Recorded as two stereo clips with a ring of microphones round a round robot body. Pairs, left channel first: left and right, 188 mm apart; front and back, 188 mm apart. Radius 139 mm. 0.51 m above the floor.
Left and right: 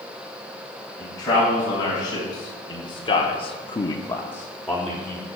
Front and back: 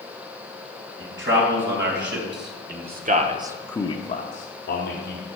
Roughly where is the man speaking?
Behind.